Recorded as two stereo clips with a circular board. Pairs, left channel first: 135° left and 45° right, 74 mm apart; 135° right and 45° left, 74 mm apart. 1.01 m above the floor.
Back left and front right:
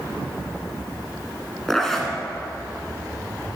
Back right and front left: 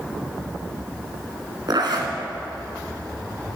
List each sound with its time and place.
1.7 s a zipper: 50° left, 1.8 m